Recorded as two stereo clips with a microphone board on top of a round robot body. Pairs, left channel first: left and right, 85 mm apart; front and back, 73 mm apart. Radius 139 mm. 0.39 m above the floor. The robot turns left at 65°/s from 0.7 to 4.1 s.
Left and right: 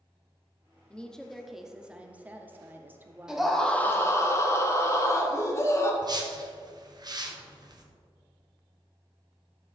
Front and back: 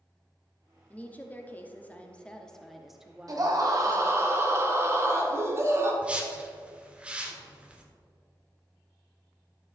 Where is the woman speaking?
35° left, 1.1 m; by 4.3 s 175° right, 1.1 m.